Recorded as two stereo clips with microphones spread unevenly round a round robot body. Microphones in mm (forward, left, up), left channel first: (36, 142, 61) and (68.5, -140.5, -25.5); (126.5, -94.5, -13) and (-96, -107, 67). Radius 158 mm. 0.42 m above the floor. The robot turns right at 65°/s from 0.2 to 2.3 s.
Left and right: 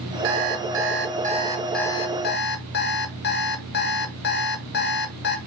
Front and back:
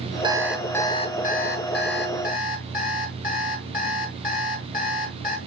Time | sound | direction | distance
0.2 | an alarm clock | 100° right | 1.2 m